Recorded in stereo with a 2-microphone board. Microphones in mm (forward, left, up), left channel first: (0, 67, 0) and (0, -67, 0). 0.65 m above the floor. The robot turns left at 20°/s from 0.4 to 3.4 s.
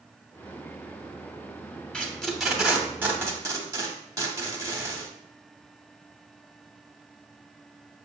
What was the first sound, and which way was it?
Tape being pulled, 5° left (ahead or behind).